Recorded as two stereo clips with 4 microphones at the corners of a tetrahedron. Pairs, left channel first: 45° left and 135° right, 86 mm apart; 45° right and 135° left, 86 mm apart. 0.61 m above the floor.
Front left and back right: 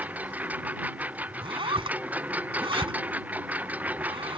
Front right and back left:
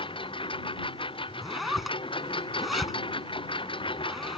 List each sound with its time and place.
0.0 s a lawn mower: 60° right
1.4 s a zipper: 135° right